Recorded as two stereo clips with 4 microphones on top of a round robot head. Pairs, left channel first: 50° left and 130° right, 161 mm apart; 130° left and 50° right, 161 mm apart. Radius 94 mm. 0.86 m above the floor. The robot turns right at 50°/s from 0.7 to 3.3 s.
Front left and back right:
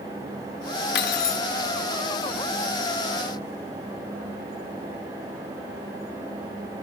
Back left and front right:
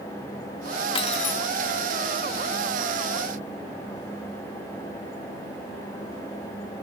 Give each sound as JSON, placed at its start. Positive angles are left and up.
{"t": 0.9, "sound": "cutlery clinking", "azimuth_deg": 70, "distance_m": 0.9}